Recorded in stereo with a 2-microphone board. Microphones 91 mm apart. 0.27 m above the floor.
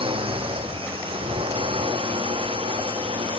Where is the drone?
85° right.